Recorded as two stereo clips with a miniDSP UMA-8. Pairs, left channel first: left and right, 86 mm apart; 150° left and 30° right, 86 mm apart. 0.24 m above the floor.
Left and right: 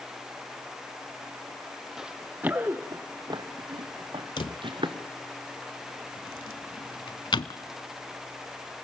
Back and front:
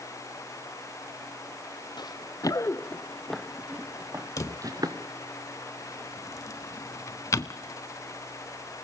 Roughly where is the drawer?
Left.